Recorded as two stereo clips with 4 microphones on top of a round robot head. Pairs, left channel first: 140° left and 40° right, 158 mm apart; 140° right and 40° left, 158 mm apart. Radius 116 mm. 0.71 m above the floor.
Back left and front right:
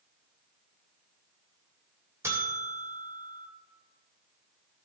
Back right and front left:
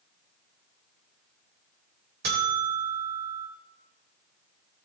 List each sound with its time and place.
2.2 s a buzzer: 35° left, 2 m